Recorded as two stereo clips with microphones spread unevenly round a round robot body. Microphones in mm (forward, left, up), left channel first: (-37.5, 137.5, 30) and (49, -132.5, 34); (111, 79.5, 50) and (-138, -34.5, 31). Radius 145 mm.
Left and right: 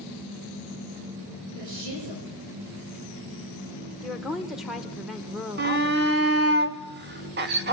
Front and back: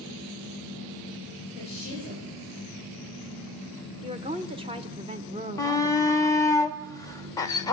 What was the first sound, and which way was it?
A woman speaking, 45° right.